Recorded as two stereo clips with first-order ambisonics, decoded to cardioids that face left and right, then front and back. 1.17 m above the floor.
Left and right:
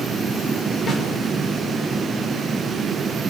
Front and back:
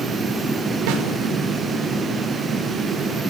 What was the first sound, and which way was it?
A snare drum, 160° left.